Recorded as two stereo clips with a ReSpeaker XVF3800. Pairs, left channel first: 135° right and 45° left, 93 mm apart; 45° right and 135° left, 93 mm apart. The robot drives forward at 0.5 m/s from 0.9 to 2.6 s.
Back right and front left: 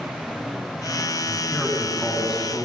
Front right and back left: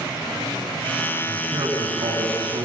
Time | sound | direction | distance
1.3 | a man speaking | 125° left | 8.5 m